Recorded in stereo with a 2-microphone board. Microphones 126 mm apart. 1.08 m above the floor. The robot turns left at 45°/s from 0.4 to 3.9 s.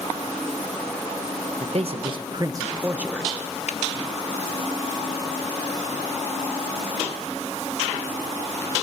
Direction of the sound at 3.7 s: 70° left (ahead or behind).